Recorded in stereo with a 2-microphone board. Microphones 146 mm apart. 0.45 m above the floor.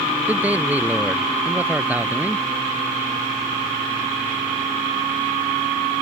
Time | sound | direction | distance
0.3 | a man speaking | 10° right (ahead or behind) | ?